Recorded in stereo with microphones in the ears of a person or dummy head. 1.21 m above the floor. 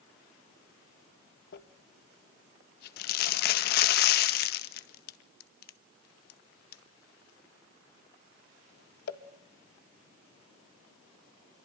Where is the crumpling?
55° left (ahead or behind), 1.6 m.